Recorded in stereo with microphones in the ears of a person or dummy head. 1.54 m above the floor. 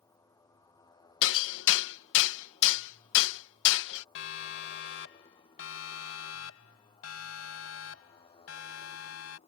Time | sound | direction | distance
0.0 | a motorcycle | 15° left (ahead or behind) | ?
1.2 | hammering | 75° left (ahead or behind) | ?
4.2 | a siren | 70° left (ahead or behind) | ?